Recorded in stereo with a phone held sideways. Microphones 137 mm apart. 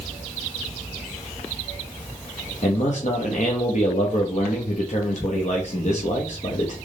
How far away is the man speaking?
About 0.9 m.